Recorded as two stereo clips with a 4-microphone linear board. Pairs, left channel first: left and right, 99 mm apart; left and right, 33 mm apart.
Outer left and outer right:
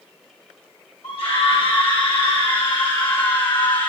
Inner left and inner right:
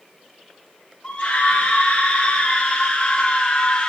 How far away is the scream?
About 7 m.